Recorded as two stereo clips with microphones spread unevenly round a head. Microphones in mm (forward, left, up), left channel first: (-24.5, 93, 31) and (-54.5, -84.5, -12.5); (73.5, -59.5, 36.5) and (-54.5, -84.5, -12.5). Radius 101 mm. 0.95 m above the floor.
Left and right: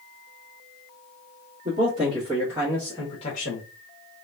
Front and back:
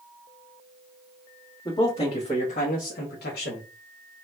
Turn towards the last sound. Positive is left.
turn(degrees=35)